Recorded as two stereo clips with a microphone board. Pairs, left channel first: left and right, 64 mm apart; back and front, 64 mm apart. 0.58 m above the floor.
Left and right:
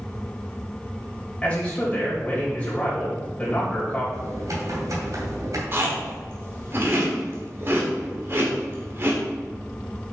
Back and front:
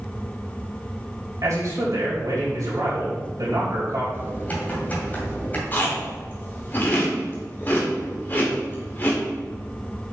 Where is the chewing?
130° right, 2 m.